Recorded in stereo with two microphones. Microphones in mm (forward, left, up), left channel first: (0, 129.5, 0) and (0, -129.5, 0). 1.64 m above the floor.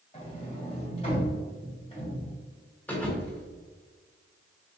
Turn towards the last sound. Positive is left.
turn(degrees=5)  # may be behind; listen again after turning